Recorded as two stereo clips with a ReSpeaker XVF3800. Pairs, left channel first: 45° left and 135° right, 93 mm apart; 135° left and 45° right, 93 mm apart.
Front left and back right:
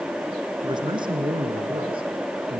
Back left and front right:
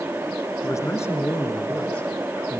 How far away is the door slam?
I don't hear a door slam.